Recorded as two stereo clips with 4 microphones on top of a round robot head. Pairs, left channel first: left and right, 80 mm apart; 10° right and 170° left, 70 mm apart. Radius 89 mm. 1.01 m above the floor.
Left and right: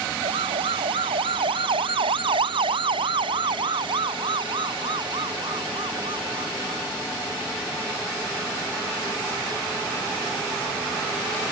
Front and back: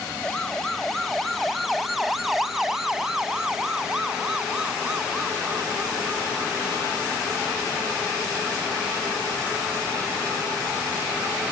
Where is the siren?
95° right; by 6.8 s 115° right.